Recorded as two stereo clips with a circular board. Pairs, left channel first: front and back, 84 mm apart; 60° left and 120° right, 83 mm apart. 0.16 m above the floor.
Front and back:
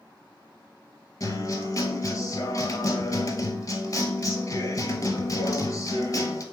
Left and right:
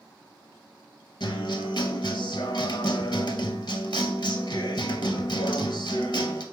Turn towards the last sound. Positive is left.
turn(degrees=40)